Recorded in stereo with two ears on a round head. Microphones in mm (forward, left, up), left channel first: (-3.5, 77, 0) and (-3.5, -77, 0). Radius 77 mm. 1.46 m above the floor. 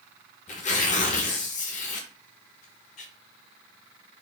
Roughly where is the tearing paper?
Left.